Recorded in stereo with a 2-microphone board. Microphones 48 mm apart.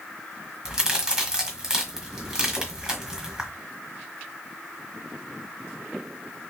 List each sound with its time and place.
0.7 s a crack: 15° right (ahead or behind), 1.4 m